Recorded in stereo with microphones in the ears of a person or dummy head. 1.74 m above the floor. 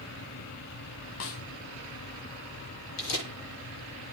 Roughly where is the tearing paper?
Left.